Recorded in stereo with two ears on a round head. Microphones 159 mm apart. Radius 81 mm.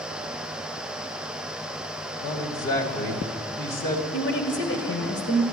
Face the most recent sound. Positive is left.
turn(degrees=65)  # may be behind; listen again after turning